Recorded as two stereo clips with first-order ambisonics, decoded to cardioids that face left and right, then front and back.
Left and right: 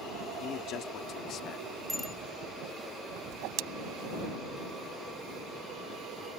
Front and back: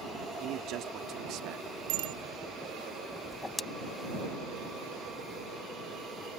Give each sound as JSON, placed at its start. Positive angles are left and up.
{"t": 0.4, "sound": "a man speaking", "azimuth_deg": 140}
{"t": 1.9, "sound": "a bicycle bell", "azimuth_deg": 180}
{"t": 3.3, "sound": "a whoosh", "azimuth_deg": -80}